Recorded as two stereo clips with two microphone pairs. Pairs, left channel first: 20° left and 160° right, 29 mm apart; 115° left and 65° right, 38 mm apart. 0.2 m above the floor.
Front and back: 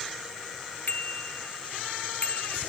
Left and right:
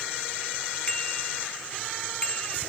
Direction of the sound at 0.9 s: 50° left.